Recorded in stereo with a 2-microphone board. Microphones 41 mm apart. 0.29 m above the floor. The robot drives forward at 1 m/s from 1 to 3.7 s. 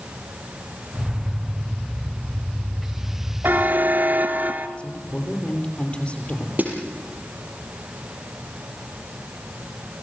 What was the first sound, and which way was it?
A buzzer, 60° right (ahead or behind).